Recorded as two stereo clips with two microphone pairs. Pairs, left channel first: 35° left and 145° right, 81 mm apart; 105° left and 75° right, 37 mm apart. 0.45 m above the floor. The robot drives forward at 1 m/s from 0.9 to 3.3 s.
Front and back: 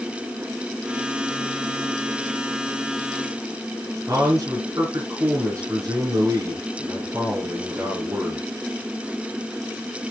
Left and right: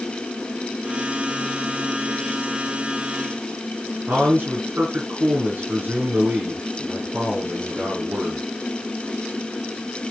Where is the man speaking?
100° right, 4.5 m.